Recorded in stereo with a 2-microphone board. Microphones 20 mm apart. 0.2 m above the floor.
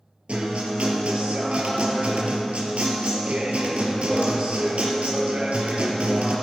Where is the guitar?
75° right (ahead or behind), 2.5 m.